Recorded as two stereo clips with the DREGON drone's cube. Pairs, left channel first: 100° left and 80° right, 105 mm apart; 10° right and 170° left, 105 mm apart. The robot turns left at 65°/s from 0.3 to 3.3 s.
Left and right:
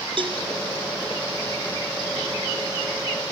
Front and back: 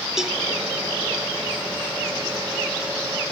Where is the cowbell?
105° right, 1.1 m; by 0.4 s 115° right, 1.1 m.